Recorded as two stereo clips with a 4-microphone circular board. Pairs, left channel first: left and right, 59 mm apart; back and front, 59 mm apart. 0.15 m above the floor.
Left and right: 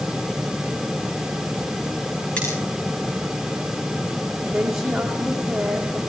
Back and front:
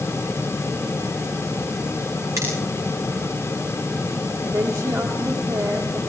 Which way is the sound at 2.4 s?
20° left.